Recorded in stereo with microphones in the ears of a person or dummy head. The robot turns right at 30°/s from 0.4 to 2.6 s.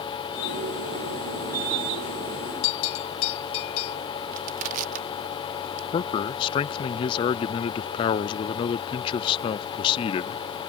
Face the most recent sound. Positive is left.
turn(degrees=25)  # may be behind; listen again after turning